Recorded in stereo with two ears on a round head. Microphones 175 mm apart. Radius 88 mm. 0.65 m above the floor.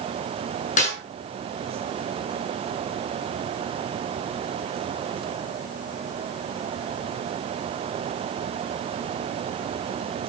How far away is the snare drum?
About 6.5 m.